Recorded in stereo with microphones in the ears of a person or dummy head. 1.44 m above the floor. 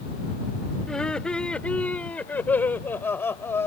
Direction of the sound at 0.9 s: 5° left (ahead or behind).